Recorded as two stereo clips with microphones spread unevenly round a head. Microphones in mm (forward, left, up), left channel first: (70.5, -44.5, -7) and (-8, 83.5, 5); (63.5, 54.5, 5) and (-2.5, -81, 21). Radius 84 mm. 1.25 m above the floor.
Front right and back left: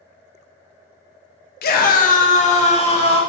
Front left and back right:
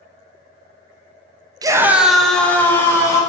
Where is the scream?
50° right, 0.5 m; by 3.2 s 10° right, 1.3 m.